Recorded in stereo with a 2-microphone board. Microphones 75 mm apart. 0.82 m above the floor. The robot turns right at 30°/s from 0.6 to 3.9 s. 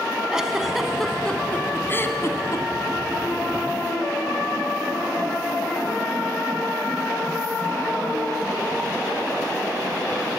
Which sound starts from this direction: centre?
A giggle, at 0.3 s.